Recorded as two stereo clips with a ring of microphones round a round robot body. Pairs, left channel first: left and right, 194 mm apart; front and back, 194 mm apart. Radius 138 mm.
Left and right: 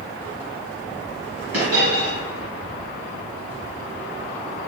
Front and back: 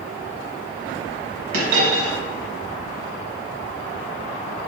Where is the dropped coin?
155° right, 1.2 m.